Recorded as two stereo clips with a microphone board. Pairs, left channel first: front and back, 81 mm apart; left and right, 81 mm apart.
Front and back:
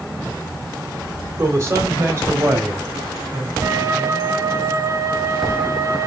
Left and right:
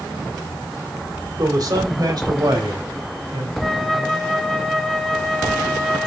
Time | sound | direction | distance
1.4 | a man speaking | 125° right | 3 m
3.6 | a flute | straight behind | 1.2 m